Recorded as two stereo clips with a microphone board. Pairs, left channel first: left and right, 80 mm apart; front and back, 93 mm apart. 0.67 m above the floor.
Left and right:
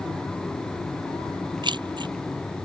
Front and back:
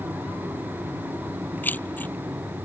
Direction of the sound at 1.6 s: 70° right.